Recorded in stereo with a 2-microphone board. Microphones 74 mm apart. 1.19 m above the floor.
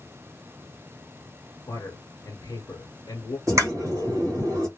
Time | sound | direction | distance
1.7 | a man speaking | 50° left (ahead or behind) | 1.0 m
3.5 | a pop | 45° right (ahead or behind) | 1.3 m